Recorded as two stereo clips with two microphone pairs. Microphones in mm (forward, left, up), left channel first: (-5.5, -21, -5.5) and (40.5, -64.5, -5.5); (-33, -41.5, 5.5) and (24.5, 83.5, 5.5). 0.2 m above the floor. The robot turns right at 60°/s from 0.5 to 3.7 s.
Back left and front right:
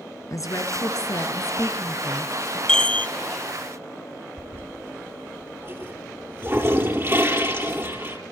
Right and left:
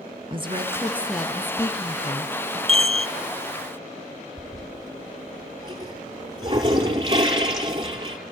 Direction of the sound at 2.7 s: 60° left.